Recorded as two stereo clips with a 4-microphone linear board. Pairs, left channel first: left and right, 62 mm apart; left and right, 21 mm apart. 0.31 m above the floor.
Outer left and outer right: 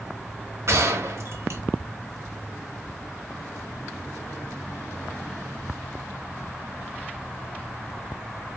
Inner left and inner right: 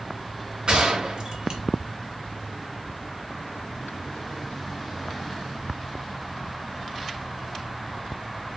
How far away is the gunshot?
About 1.1 m.